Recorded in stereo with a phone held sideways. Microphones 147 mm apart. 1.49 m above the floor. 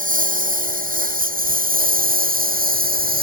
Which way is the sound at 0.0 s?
70° right (ahead or behind).